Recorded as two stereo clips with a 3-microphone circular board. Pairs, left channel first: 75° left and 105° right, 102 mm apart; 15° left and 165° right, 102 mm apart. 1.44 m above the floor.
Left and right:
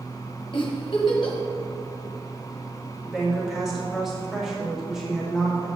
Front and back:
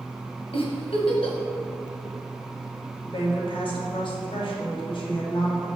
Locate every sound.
0.5 s a giggle: 35° left, 1.3 m
3.0 s a woman speaking: 20° right, 2 m